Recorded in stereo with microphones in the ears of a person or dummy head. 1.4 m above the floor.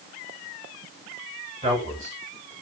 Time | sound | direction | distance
1.6 | a man speaking | 30° right (ahead or behind) | 7.5 m